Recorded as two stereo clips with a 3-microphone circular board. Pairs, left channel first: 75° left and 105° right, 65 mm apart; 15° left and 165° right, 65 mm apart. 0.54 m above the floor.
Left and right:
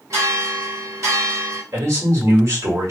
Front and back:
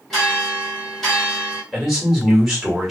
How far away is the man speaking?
About 1.6 m.